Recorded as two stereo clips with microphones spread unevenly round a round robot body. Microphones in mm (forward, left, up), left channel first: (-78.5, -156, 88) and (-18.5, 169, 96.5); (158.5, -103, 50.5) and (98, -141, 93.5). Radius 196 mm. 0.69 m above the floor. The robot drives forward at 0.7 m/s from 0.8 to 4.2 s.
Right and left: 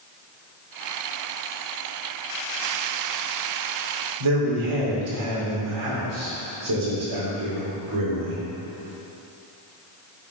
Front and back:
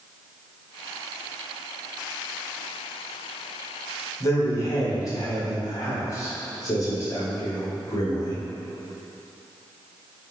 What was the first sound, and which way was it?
A man speaking, 55° left.